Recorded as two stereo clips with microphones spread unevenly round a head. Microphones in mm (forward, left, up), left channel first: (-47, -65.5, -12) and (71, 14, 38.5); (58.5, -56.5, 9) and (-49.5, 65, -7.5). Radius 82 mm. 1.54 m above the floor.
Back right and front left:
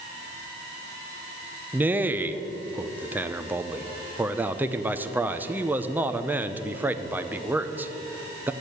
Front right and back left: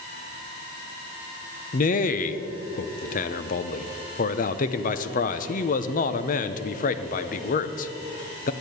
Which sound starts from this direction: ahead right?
A man speaking, at 1.7 s.